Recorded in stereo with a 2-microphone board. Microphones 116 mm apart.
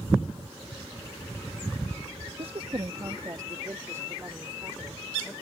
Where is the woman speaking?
55° right (ahead or behind); by 5.3 s 20° right (ahead or behind).